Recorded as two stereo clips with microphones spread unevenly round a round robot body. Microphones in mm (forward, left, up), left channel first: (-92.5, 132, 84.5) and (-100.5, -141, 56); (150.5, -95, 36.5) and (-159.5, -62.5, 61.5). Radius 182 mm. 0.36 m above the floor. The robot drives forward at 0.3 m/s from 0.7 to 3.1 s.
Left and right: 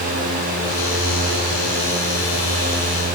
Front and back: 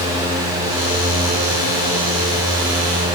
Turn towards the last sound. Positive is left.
No sound to turn to.